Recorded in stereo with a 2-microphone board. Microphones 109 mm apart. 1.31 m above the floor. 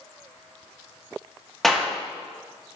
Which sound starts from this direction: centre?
A clap, at 1.6 s.